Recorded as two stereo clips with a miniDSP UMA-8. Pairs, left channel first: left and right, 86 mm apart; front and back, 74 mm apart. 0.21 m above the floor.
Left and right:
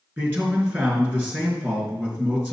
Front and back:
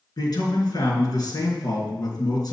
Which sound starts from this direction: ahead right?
A man speaking, at 0.2 s.